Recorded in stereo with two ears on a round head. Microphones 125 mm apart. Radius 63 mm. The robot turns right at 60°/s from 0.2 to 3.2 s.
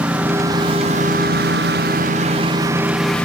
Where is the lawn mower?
10° right (ahead or behind); by 3.2 s 10° left (ahead or behind).